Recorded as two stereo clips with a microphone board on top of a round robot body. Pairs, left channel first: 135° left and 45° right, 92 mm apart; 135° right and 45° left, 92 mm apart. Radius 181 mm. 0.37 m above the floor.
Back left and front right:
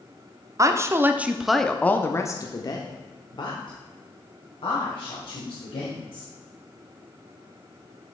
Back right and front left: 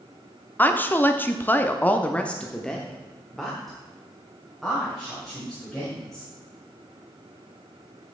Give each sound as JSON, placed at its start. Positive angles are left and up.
{"t": 0.6, "sound": "a woman speaking", "azimuth_deg": -75, "distance_m": 1.1}